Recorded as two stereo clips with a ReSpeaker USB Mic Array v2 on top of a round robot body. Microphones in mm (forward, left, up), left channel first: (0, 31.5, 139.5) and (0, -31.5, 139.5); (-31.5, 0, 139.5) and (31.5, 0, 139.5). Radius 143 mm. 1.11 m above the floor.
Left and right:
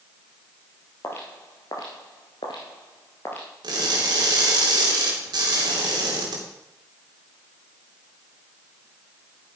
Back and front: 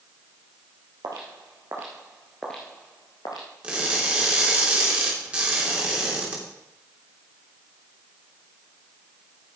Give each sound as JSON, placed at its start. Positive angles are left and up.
{"t": 1.0, "sound": "footsteps", "azimuth_deg": 35, "distance_m": 2.0}
{"t": 3.6, "sound": "crushing", "azimuth_deg": -75, "distance_m": 3.0}